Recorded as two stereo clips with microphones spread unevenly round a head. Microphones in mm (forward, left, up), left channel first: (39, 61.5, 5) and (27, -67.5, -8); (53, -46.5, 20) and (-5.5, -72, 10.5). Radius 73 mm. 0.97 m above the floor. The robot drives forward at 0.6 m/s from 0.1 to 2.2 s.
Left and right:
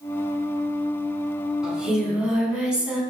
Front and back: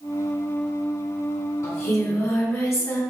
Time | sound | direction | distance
1.6 | singing | 10° right | 2.5 m